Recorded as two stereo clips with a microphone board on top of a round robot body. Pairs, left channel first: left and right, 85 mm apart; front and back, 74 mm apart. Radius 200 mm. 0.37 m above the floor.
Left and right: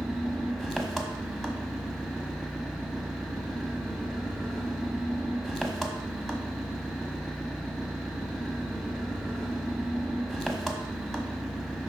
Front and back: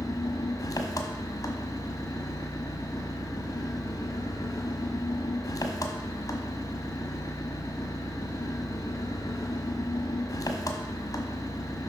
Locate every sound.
0.0 s an engine running: 5° left, 1.3 m